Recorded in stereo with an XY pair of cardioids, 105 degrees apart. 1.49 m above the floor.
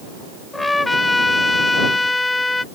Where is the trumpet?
20° left.